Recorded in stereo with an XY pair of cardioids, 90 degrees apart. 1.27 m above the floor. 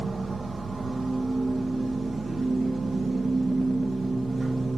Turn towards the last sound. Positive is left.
turn(degrees=-35)